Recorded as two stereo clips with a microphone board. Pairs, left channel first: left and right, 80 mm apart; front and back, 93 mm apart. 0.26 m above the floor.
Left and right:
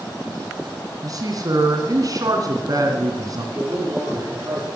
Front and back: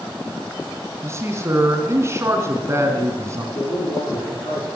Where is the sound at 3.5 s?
30° right, 9.5 m.